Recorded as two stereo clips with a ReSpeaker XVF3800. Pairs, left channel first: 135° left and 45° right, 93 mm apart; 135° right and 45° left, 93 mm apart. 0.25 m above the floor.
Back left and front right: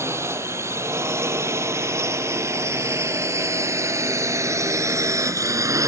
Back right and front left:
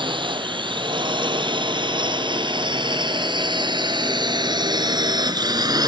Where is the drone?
15° left; by 5.9 s 5° left.